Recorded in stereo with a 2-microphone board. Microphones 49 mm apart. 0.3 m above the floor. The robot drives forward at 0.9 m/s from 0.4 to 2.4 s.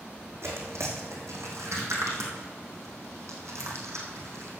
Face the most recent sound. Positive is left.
turn(degrees=-90)